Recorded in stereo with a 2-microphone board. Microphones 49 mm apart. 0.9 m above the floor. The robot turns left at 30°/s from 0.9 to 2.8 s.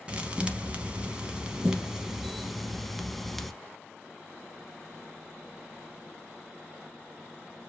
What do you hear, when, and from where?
0.1 s a thud: 25° right (ahead or behind), 0.8 m; by 3.5 s centre (ahead or behind), 0.8 m